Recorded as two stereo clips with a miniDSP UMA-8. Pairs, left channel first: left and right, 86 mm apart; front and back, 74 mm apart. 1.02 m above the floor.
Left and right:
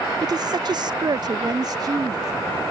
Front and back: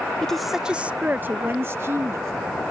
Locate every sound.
0.2 s a woman speaking: 80° right; by 2.3 s 130° right